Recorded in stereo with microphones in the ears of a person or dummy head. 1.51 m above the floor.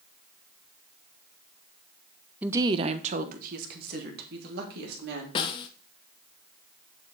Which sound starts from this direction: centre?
A woman speaking, at 2.4 s.